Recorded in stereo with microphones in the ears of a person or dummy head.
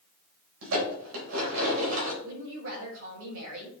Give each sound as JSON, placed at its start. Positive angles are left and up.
{"t": 0.6, "sound": "dishes clattering", "side_deg": -75, "distance_m": 4.0}
{"t": 2.2, "sound": "a woman speaking", "side_deg": -75, "distance_m": 4.0}